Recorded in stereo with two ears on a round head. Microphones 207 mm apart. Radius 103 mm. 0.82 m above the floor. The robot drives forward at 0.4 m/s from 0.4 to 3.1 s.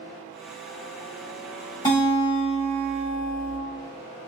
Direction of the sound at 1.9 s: 20° left (ahead or behind).